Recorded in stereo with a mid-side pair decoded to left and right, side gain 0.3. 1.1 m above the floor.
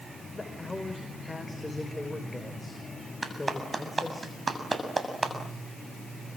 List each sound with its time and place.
0.3 s a man speaking: 20° left, 5.5 m
3.2 s a clap: 35° right, 7 m